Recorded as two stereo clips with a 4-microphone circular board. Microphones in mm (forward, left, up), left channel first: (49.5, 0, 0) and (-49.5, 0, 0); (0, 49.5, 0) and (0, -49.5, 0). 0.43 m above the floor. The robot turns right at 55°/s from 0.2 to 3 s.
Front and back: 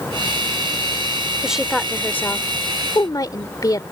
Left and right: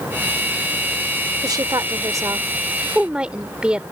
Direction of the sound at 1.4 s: 105° right.